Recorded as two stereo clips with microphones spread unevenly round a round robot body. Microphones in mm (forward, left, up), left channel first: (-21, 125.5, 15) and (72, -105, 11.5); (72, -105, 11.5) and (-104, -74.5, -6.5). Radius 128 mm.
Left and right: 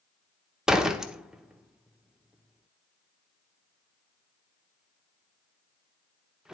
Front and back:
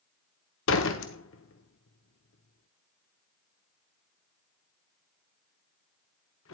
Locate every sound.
0.7 s a door slam: 20° left, 1.0 m